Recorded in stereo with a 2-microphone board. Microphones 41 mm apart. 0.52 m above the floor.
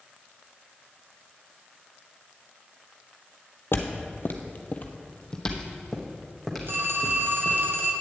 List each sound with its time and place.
3.7 s footsteps: 65° left (ahead or behind), 1.0 m; by 7.6 s 10° right (ahead or behind), 2.5 m
6.7 s a phone ringing: 75° right (ahead or behind), 1.5 m